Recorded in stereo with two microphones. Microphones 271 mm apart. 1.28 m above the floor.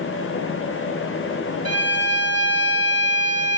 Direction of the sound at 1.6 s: 65° right (ahead or behind).